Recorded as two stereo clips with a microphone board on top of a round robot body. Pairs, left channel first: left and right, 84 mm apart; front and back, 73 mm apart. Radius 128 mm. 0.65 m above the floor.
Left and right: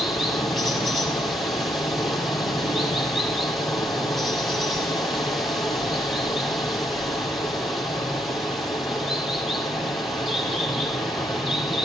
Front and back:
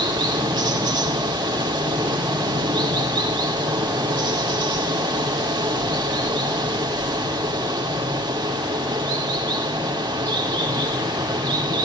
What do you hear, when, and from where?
0.0 s running water: straight behind, 4.5 m